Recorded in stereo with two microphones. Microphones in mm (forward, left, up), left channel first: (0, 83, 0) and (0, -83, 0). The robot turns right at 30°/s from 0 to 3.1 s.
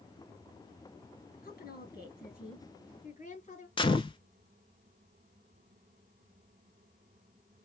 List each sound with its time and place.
1.4 s a woman speaking: 80° left, 3.5 m; by 3.7 s 130° left, 3.5 m
3.8 s a gunshot: 30° left (ahead or behind), 0.6 m